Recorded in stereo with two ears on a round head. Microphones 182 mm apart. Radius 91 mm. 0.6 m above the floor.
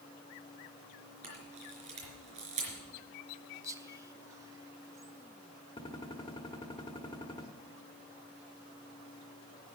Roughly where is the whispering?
Centre.